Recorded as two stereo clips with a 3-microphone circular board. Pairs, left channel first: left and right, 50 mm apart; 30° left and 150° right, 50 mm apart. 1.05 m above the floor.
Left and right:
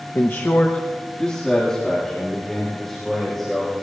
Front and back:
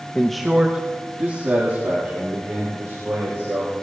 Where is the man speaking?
95° left, 0.8 m; by 3.7 s 170° left, 5 m.